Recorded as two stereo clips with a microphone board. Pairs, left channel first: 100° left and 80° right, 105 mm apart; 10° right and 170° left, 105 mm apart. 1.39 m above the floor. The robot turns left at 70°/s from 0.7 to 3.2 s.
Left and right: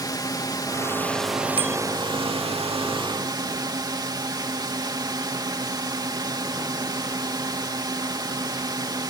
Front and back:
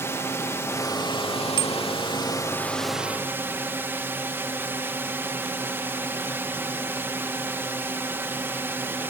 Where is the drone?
50° left; by 9.1 s 125° right.